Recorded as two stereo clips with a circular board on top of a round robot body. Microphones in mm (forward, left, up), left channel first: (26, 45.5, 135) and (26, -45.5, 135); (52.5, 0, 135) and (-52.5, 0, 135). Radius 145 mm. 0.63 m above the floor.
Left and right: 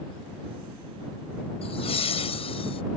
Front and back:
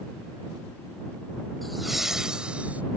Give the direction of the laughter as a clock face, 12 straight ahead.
9 o'clock.